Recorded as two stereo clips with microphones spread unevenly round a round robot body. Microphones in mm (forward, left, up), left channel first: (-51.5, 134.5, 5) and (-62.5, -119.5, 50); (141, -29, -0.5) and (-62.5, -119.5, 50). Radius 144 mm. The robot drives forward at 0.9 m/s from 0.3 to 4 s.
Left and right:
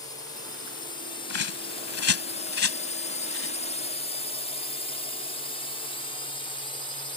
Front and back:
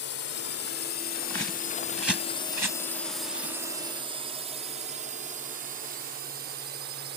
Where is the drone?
20° left; by 7.2 s 150° left.